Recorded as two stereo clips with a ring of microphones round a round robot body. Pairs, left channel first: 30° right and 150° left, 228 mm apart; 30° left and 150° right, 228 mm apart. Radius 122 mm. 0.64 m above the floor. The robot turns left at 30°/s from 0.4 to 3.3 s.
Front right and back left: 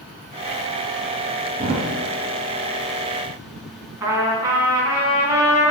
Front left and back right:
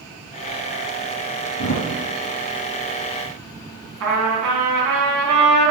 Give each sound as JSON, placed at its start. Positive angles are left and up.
{"t": 1.6, "sound": "a thud", "azimuth_deg": 65, "distance_m": 1.8}
{"t": 4.0, "sound": "a trumpet", "azimuth_deg": -135, "distance_m": 2.5}